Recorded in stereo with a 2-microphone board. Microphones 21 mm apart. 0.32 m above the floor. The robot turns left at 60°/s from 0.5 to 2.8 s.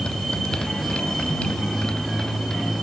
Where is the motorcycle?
50° left (ahead or behind); by 2.8 s 5° left (ahead or behind).